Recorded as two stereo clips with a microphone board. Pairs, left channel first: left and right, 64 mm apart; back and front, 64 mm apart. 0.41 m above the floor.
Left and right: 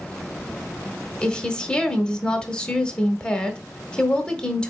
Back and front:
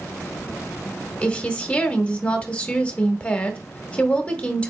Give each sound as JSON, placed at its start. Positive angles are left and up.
{"t": 1.2, "sound": "a woman speaking", "azimuth_deg": 145, "distance_m": 0.8}